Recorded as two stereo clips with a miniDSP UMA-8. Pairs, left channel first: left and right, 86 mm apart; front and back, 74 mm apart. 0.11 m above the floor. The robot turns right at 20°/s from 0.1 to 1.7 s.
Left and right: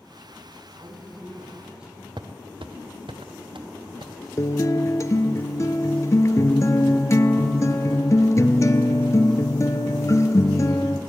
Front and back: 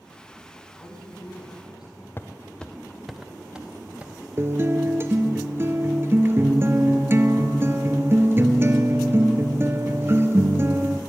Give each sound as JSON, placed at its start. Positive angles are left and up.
{"t": 0.8, "sound": "a woman speaking", "azimuth_deg": -30, "distance_m": 4.0}
{"t": 2.2, "sound": "footsteps", "azimuth_deg": -60, "distance_m": 0.8}
{"t": 4.4, "sound": "a guitar", "azimuth_deg": 130, "distance_m": 0.6}